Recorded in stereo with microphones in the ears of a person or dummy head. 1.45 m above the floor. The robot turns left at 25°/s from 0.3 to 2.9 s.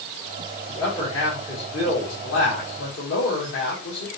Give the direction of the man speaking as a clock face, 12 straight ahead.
6 o'clock.